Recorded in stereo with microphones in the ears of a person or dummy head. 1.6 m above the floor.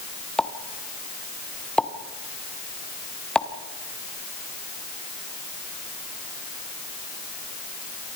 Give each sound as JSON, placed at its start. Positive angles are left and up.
{"t": 0.4, "sound": "a pop", "side_deg": 5, "distance_m": 1.3}